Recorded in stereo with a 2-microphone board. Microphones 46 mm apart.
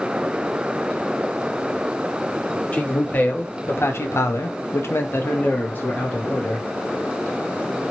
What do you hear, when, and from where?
2.7 s a man speaking: 30° left (ahead or behind), 1.0 m; by 6.7 s 35° left (ahead or behind), 1.4 m